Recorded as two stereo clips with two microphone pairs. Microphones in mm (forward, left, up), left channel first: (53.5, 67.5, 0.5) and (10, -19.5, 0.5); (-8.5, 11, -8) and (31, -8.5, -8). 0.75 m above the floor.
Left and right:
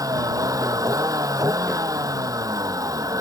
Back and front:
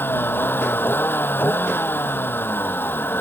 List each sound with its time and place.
0.0 s a vehicle: 170° right